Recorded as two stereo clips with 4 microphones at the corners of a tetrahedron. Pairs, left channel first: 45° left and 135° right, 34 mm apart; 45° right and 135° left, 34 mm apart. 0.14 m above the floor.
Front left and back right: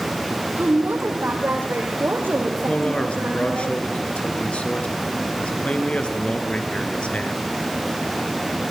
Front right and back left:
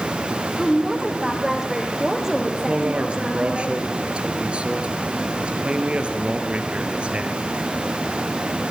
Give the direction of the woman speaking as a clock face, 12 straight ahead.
5 o'clock.